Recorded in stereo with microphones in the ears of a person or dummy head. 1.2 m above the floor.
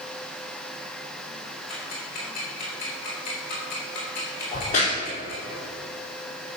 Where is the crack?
40° left (ahead or behind), 3.5 m.